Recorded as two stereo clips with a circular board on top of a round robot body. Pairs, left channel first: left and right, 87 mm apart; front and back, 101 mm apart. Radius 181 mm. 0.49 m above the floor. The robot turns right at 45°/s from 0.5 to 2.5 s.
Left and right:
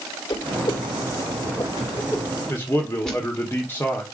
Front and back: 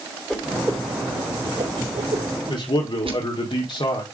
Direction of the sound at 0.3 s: 85° left.